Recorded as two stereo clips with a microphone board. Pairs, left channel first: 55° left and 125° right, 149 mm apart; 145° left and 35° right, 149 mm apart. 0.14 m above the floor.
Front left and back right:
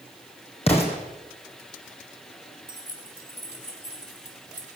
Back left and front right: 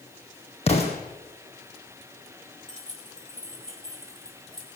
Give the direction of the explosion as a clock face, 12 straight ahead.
9 o'clock.